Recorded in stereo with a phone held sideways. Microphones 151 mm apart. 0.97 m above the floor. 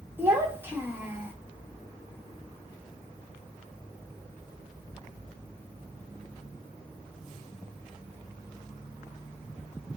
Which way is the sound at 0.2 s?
15° right (ahead or behind).